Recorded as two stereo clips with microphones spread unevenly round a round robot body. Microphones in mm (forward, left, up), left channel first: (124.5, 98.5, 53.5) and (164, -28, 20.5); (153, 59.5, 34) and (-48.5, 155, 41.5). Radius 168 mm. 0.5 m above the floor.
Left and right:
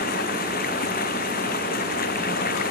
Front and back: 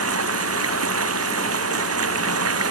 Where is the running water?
145° left.